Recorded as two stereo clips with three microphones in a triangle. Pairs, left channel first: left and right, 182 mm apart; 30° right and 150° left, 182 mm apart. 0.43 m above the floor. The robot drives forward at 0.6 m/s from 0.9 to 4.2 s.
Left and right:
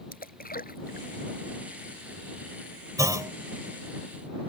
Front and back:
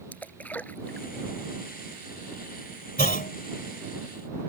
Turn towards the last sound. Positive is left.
turn(degrees=-35)